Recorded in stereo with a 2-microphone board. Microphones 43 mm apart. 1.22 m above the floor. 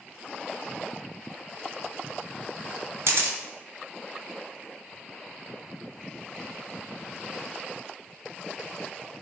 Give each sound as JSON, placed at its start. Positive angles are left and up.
{"t": 3.1, "sound": "a camera shutter", "side_deg": -70, "distance_m": 0.6}